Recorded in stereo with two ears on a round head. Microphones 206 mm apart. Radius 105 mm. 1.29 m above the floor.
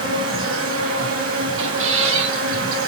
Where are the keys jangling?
No keys jangling in this recording.